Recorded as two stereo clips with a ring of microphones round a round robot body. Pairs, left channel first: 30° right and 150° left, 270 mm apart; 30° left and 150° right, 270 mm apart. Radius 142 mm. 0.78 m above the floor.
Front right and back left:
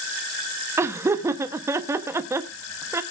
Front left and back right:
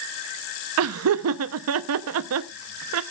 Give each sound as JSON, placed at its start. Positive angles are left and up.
{"t": 0.8, "sound": "laughter", "azimuth_deg": -130, "distance_m": 0.7}